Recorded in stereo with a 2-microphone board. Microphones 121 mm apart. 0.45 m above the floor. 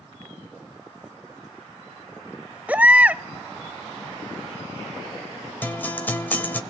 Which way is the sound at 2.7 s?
15° right (ahead or behind).